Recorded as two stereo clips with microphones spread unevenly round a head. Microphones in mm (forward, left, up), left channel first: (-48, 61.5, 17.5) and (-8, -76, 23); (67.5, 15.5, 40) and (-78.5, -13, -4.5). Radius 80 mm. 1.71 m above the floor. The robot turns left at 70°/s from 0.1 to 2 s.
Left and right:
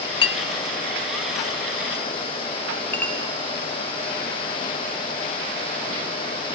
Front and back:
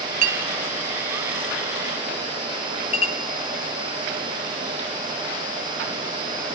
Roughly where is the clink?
Behind left.